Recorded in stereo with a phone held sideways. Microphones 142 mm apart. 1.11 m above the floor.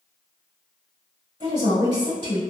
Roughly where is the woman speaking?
Right.